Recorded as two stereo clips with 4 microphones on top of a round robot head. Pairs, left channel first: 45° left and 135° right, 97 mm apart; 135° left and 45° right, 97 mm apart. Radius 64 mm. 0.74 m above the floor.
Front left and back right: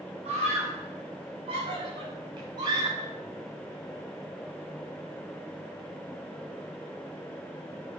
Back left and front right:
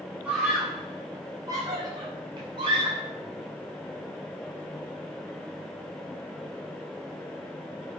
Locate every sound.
0.2 s a scream: 120° right, 5.5 m; by 3.1 s 80° right, 7.5 m